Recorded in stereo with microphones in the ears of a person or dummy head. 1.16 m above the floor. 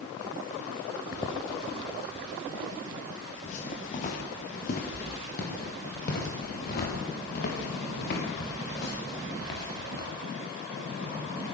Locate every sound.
1.1 s footsteps: 20° left (ahead or behind), 3.5 m; by 10.1 s 60° left (ahead or behind), 8.5 m